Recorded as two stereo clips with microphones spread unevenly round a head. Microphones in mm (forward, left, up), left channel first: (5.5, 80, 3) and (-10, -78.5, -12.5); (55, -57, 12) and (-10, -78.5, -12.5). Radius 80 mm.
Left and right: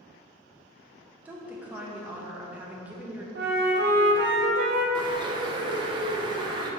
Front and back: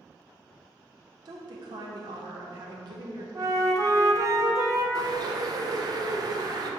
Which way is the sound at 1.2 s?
175° right.